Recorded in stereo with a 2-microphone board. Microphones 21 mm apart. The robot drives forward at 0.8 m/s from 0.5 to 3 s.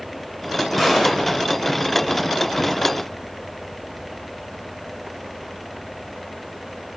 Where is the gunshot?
Centre (ahead or behind), 2 m.